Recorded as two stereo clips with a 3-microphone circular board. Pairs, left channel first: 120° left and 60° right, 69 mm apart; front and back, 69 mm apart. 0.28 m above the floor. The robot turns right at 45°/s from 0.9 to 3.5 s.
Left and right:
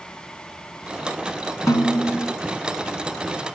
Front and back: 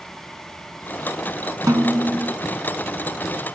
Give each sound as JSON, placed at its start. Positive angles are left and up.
{"t": 1.7, "sound": "a snare drum", "azimuth_deg": 150, "distance_m": 0.9}